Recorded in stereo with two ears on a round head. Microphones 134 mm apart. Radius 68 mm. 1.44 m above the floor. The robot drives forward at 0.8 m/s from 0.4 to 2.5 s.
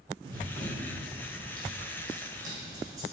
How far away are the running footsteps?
About 1.7 m.